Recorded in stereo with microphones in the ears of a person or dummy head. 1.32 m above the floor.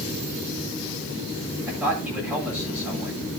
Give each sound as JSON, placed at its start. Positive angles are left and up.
{"t": 1.7, "sound": "a man speaking", "side_deg": -5, "distance_m": 8.0}